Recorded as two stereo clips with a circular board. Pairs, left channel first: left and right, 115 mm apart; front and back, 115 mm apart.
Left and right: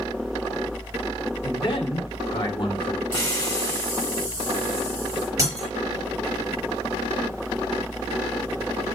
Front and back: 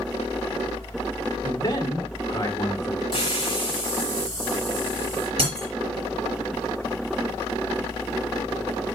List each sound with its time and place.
1.4 s a man speaking: 50° left, 1.8 m
3.1 s a hiss: 30° left, 1.8 m
5.4 s breaking glass: 150° right, 4 m